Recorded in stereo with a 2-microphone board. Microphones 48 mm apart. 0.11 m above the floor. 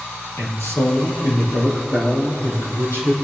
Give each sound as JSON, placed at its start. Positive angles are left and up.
{"t": 0.4, "sound": "a man speaking", "side_deg": 65, "distance_m": 3.5}